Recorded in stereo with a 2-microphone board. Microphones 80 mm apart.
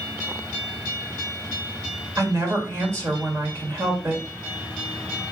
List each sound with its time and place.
2.2 s a woman speaking: 40° right (ahead or behind), 1.6 m